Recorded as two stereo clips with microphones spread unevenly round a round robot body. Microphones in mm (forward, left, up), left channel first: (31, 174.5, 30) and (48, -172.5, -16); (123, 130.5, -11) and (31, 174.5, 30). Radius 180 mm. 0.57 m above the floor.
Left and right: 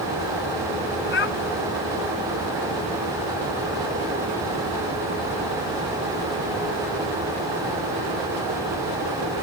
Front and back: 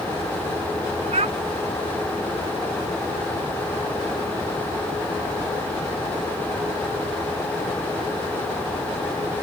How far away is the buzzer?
No buzzer in this recording.